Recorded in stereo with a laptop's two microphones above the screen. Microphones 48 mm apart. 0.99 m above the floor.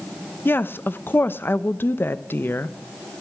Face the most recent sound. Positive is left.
turn(degrees=50)  # may be behind; listen again after turning